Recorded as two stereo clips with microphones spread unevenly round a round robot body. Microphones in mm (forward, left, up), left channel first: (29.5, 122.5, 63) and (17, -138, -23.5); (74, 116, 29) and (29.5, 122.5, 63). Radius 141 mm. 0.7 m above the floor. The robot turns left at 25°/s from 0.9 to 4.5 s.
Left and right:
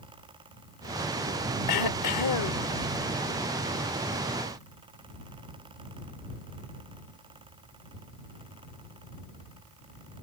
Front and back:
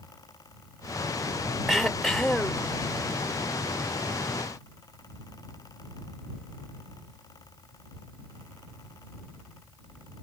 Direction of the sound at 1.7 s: 80° left.